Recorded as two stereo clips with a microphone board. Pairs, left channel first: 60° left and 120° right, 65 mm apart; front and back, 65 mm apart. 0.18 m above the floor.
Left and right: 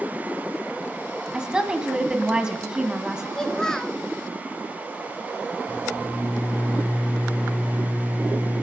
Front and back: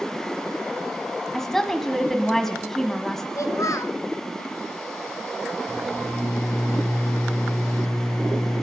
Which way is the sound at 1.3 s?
70° right.